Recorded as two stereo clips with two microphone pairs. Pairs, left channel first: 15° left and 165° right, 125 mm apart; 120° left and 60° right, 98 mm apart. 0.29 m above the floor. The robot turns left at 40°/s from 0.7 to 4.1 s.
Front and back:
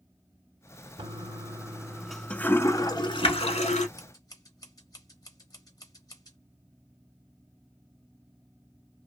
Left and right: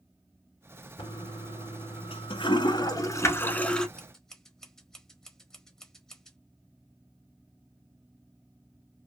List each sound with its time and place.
1.0 s a toilet flushing: 150° left, 0.7 m; by 3.9 s 30° left, 0.7 m
4.0 s scissors: 45° left, 1.1 m; by 6.4 s 40° left, 1.1 m